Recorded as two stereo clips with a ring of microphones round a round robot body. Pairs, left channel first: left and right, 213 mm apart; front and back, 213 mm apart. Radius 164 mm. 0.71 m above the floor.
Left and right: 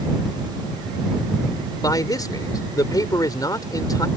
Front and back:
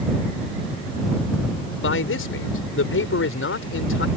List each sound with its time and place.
1.8 s a man speaking: 15° left